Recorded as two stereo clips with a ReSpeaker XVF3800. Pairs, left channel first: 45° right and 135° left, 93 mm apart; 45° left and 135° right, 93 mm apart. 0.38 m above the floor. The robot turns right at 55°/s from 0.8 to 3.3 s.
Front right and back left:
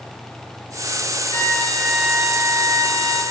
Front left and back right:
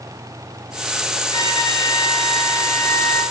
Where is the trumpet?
10° left, 5.5 m; by 3.2 s 115° left, 5.5 m.